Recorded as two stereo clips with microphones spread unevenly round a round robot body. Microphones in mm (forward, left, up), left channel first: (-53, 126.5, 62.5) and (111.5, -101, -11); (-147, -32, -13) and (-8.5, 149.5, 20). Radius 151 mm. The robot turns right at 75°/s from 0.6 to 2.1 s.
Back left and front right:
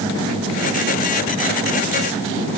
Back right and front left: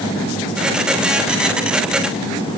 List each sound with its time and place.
Only background noise.